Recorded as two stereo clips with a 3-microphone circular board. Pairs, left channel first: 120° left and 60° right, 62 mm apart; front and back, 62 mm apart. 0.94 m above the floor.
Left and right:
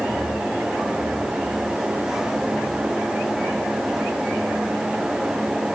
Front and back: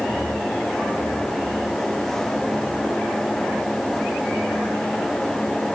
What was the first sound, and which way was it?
Only background noise.